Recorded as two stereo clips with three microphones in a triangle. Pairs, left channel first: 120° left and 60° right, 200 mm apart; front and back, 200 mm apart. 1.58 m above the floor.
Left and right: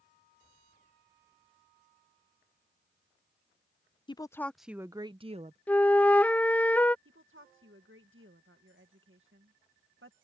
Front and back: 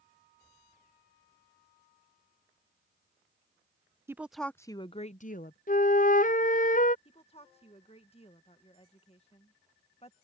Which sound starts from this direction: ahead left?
A flute, at 5.7 s.